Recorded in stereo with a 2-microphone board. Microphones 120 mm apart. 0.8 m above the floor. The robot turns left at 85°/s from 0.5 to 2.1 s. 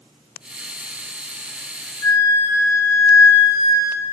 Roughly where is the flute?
Left.